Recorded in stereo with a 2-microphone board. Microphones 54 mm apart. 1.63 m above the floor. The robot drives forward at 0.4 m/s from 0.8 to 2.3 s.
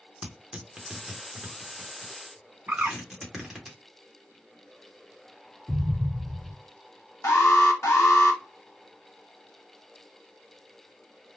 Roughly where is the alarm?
Left.